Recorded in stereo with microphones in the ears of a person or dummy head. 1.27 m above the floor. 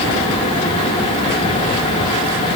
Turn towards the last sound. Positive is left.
No sound to turn to.